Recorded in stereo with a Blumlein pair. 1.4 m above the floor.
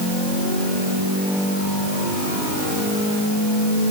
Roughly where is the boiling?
I don't hear boiling.